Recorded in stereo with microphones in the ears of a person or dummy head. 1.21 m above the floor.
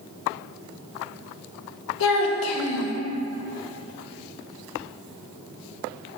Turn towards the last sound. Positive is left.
turn(degrees=65)  # may be behind; listen again after turning